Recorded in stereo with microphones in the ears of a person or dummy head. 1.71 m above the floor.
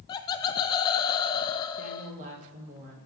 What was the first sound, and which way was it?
Laughter, 25° left (ahead or behind).